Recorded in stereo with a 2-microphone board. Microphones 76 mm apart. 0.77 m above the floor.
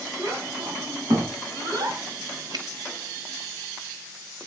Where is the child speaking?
70° right (ahead or behind), 5.5 m; by 2.0 s 55° right (ahead or behind), 5 m.